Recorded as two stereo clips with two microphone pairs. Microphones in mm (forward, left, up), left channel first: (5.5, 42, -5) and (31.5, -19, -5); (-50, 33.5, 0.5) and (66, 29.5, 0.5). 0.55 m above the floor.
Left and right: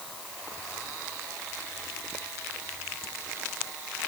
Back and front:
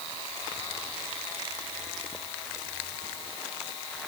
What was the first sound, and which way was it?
Only background noise.